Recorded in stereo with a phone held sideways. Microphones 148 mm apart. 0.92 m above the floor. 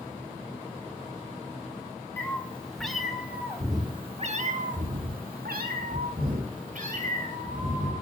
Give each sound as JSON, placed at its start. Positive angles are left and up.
{"t": 2.2, "sound": "a cat meowing", "side_deg": 15, "distance_m": 1.9}